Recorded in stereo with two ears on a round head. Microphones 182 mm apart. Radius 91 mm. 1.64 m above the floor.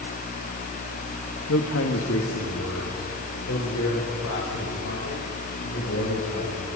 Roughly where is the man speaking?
Left.